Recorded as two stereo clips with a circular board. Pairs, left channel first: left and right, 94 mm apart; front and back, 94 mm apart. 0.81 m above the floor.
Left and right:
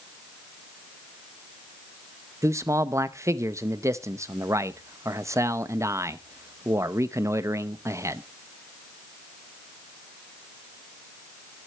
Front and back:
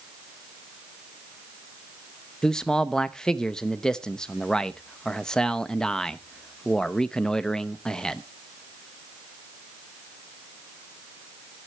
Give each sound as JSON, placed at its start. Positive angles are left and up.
{"t": 2.4, "sound": "a man speaking", "azimuth_deg": -75, "distance_m": 0.7}